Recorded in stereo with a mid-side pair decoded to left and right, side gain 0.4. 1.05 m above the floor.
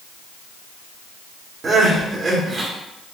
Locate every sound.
1.6 s crying: 50° right, 1.3 m